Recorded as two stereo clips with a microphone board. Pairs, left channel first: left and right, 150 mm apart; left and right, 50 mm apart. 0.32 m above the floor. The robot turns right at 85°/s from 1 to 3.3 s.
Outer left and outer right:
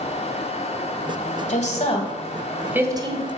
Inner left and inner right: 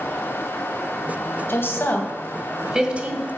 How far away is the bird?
I don't hear a bird.